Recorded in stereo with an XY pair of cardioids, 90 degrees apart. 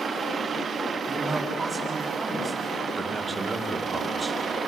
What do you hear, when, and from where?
1.1 s a man speaking: 20° right, 7.5 m
3.0 s a man speaking: 30° right, 3 m